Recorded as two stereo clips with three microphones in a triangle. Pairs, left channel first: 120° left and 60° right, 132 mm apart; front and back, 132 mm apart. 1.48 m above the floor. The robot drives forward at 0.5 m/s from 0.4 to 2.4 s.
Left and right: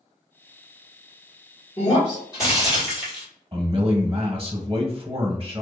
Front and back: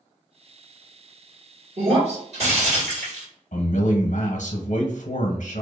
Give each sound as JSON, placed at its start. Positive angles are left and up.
{"t": 1.8, "sound": "breaking glass", "azimuth_deg": 180, "distance_m": 1.3}
{"t": 3.5, "sound": "a man speaking", "azimuth_deg": -10, "distance_m": 0.7}